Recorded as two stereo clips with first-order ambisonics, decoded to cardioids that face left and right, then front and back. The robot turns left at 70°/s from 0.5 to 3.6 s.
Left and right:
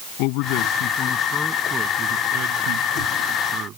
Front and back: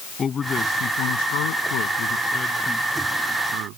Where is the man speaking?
70° left; by 3.8 s 145° right.